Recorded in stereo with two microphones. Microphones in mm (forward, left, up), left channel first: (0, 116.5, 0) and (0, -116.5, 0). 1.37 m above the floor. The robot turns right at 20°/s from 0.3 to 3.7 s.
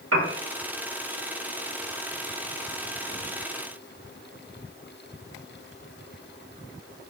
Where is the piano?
80° right, 1.1 m.